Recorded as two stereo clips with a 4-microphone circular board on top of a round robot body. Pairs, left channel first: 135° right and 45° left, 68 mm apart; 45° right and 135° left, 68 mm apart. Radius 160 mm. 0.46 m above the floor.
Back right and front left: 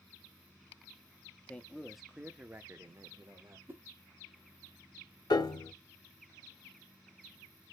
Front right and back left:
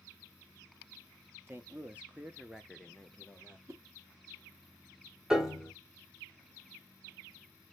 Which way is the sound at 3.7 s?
100° left.